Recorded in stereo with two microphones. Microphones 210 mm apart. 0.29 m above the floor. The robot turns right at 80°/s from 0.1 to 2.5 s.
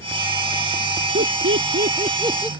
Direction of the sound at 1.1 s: 60° right (ahead or behind).